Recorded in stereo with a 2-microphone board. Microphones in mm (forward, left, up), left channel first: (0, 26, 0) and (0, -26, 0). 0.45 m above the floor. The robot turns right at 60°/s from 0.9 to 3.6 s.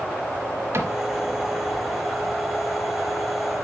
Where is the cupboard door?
50° right (ahead or behind), 1.0 m; by 0.9 s 55° right (ahead or behind), 1.0 m.